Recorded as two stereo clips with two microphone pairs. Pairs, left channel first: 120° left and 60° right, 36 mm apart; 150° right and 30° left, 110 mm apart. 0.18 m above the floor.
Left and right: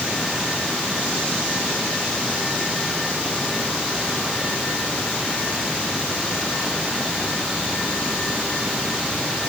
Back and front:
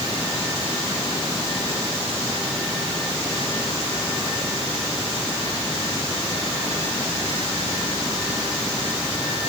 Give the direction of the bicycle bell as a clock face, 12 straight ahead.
No bicycle bell in this recording.